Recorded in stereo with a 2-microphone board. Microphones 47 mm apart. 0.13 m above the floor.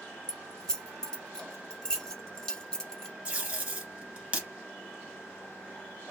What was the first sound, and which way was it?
Keys jangling, 15° left (ahead or behind).